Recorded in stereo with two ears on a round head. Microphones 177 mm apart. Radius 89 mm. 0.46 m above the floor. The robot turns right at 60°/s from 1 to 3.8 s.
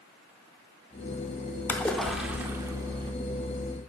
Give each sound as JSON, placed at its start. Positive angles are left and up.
{"t": 1.7, "sound": "a splash", "side_deg": 10, "distance_m": 0.6}